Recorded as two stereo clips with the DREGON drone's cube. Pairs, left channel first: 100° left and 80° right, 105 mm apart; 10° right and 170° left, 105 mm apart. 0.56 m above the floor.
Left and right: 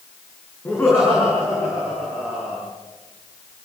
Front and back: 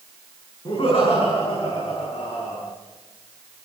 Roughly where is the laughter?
Ahead left.